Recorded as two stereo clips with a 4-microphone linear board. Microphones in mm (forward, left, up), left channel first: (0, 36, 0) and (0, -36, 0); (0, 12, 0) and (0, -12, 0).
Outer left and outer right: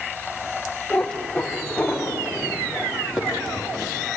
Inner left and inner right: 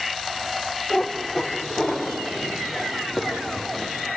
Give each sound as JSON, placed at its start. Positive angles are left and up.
{"t": 0.9, "sound": "a cat meowing", "side_deg": 15, "distance_m": 5.0}